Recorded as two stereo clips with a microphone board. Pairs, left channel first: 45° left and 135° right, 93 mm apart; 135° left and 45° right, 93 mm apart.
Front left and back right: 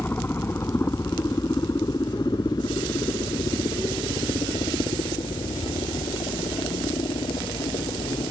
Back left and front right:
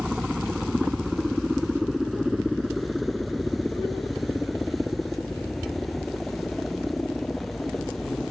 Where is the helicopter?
30° left; by 8.3 s 50° left.